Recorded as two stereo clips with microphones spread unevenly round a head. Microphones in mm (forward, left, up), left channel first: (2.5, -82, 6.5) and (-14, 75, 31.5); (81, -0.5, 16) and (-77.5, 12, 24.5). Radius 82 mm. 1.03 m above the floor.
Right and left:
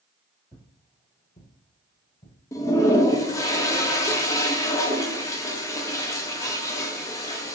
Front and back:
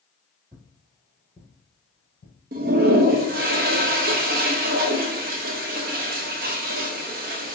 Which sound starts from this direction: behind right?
A toilet flushing, at 2.5 s.